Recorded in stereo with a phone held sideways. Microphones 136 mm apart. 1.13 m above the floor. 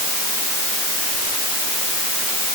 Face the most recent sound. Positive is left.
No sound to turn to.